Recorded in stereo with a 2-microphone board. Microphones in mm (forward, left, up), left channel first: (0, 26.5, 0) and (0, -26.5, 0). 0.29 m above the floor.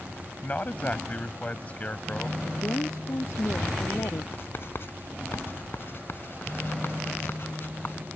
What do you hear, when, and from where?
0.4 s a man speaking: 30° left (ahead or behind)
2.4 s a woman speaking: 70° left (ahead or behind)
4.3 s writing: 50° left (ahead or behind)